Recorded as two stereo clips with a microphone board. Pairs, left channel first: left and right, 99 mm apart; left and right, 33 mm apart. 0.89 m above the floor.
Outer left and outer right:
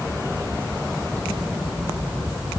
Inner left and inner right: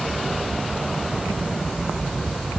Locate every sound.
Only background noise.